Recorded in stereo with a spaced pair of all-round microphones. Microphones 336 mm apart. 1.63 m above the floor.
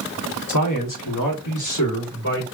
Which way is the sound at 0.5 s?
60° left (ahead or behind).